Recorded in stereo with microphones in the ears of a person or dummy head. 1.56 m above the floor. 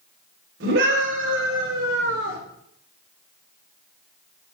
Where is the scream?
70° right (ahead or behind), 5.5 m; by 2.4 s 80° right, 4 m.